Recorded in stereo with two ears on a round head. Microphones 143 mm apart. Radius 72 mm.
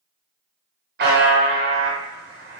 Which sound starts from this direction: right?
A buzzer, at 1.0 s.